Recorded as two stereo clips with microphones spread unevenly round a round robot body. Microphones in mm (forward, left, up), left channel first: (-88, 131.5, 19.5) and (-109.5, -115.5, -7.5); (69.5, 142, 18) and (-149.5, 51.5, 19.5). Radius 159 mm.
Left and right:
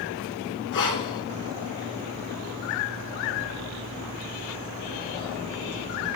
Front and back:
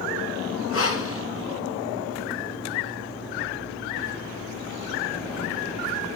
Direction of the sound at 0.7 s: 55° left.